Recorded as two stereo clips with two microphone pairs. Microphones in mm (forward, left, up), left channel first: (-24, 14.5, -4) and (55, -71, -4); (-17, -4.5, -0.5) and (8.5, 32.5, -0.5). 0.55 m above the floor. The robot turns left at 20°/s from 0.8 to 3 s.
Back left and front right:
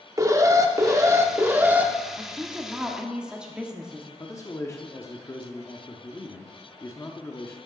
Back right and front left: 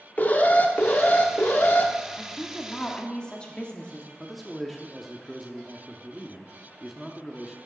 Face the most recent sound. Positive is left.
turn(degrees=145)